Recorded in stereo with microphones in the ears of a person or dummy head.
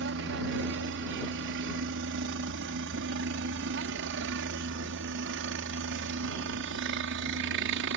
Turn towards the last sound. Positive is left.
turn(degrees=-60)  # may be behind; listen again after turning